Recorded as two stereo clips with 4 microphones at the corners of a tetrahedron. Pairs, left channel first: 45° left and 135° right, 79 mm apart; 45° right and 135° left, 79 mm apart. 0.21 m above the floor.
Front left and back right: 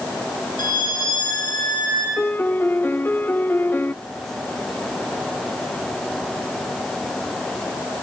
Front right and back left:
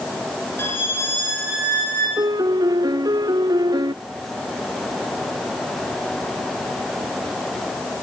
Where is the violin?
15° left, 8 m.